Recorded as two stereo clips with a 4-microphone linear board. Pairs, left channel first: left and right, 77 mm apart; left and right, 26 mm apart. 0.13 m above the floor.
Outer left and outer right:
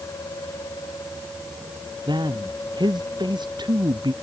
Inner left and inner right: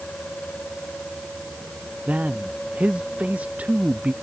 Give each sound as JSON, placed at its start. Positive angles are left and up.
{"t": 2.1, "sound": "a man speaking", "side_deg": -80}